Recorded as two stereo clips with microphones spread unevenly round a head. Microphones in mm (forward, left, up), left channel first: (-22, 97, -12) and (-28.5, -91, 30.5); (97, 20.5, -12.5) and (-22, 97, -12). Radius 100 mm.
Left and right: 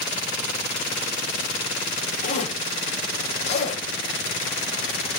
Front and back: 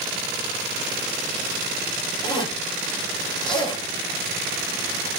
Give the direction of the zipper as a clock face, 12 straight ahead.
11 o'clock.